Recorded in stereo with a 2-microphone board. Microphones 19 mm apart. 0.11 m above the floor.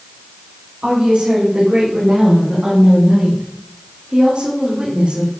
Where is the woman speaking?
80° right, 8 m; by 5.3 s 55° right (ahead or behind), 6 m.